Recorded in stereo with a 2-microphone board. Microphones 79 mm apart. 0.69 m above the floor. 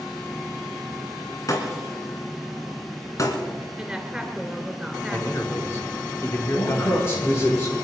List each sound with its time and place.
1.5 s breaking glass: 45° left (ahead or behind), 3 m
3.8 s a woman speaking: 10° right (ahead or behind), 2.5 m
5.1 s a man speaking: 35° left (ahead or behind), 2 m
6.5 s a man speaking: 35° left (ahead or behind), 9.5 m